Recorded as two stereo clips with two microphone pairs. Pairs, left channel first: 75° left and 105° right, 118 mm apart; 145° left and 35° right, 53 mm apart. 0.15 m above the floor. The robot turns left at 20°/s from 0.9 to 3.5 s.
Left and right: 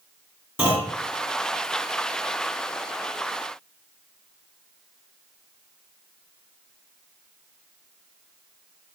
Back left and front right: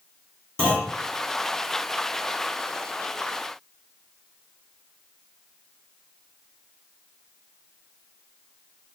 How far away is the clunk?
About 1.5 m.